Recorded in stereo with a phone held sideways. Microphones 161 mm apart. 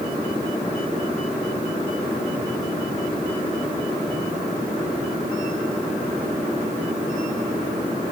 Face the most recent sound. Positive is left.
No sound to turn to.